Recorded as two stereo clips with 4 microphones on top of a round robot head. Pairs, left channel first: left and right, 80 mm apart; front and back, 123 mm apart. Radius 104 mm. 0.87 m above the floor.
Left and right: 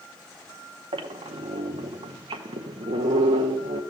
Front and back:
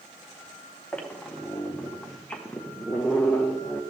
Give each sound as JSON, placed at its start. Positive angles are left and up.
{"t": 0.9, "sound": "a squeak", "azimuth_deg": -80, "distance_m": 0.6}